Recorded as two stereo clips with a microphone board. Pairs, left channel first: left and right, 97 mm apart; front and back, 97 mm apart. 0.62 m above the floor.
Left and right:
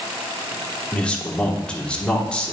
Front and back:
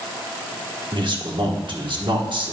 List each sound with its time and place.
0.9 s a man speaking: 165° left, 1.2 m